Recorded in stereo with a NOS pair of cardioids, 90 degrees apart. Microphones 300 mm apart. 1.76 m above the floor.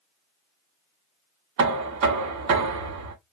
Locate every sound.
1.6 s knocking: 70° right, 1.5 m